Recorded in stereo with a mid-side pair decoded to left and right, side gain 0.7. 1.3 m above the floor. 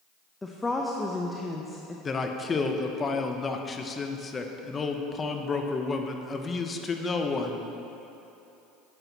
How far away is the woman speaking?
About 0.8 m.